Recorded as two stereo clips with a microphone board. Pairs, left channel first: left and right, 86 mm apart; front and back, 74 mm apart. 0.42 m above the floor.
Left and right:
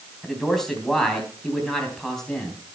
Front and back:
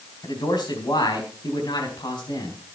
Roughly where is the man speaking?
Ahead.